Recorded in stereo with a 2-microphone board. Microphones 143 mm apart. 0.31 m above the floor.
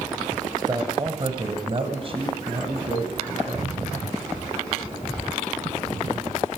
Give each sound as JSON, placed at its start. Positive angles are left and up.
{"t": 0.6, "sound": "a man speaking", "side_deg": -30, "distance_m": 1.1}